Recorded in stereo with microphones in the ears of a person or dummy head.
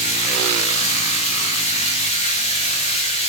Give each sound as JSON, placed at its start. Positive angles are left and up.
{"t": 0.0, "sound": "running water", "side_deg": 30, "distance_m": 0.9}